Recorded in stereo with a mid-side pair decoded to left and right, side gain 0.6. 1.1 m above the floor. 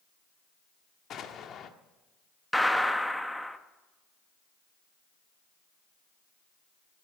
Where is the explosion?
45° left, 1.3 m.